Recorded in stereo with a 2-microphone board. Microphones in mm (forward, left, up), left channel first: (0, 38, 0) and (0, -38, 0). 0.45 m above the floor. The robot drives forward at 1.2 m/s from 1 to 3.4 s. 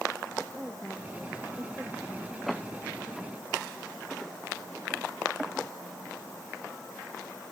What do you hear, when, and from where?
0.6 s a woman speaking: 15° right (ahead or behind)
2.5 s a door slam: centre (ahead or behind)